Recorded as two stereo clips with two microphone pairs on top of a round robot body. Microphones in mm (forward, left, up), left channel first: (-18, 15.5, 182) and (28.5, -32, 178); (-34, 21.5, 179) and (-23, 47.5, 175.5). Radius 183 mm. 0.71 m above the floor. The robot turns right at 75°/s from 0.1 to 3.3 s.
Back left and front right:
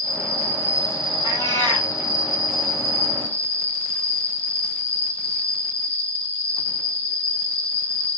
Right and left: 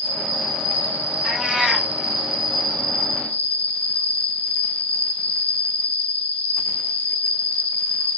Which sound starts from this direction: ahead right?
An insect, at 0.0 s.